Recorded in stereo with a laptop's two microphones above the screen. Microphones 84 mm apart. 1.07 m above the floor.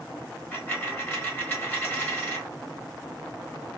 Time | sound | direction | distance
0.5 | a dropped coin | 25° left (ahead or behind) | 1.1 m